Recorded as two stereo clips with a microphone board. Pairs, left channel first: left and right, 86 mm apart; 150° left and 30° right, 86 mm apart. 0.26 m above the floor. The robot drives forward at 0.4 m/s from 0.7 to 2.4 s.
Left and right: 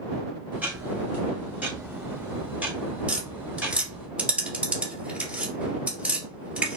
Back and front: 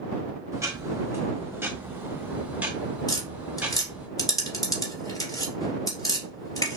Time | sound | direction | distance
0.5 | ticking | 30° right | 1.7 m
3.1 | tapping | 165° right | 2 m